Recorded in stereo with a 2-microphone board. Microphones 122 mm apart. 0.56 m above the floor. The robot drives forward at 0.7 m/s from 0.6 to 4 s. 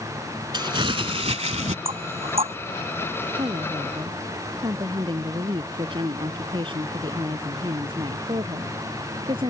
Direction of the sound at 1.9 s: 55° right (ahead or behind).